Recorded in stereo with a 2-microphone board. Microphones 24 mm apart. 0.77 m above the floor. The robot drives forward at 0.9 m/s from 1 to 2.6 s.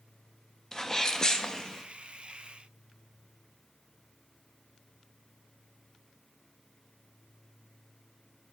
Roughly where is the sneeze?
Left.